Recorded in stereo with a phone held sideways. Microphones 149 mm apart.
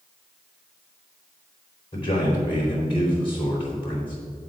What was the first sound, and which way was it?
A man speaking, 40° left (ahead or behind).